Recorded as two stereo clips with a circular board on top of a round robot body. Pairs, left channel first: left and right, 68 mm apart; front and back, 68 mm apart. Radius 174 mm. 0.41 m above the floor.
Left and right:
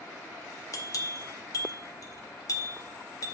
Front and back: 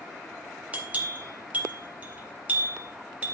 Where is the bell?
115° left, 3.5 m.